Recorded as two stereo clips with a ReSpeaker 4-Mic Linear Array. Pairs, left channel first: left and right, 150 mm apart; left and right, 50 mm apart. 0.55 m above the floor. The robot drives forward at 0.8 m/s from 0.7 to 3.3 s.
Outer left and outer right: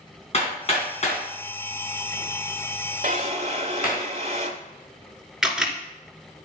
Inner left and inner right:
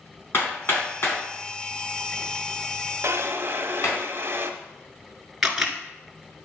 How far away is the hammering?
About 4 m.